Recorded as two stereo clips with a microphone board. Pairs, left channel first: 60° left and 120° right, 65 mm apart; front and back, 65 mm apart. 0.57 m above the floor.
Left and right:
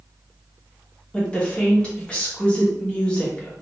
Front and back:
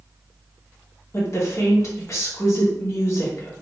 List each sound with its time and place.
1.1 s a woman speaking: 5° right, 1.0 m